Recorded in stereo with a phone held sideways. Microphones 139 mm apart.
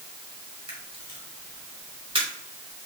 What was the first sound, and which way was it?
A camera shutter, 35° right (ahead or behind).